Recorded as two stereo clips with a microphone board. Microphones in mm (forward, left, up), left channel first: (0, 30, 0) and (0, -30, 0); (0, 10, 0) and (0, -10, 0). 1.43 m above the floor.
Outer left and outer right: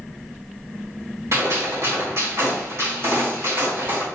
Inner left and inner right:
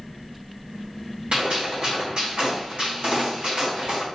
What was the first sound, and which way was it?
A gunshot, 60° right (ahead or behind).